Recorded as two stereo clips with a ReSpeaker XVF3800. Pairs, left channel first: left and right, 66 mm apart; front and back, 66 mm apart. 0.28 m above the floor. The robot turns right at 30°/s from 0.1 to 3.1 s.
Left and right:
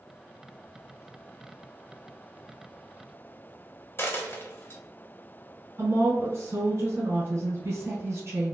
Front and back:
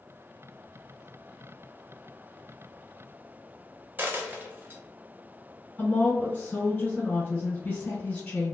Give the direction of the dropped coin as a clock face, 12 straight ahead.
8 o'clock.